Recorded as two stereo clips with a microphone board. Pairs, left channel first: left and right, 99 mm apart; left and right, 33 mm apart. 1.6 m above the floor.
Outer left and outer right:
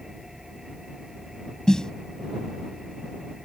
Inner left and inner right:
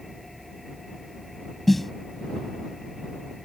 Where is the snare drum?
5° left (ahead or behind).